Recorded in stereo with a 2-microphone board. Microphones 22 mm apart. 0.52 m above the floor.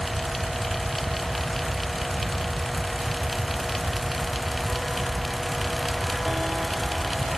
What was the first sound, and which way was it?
Only background noise.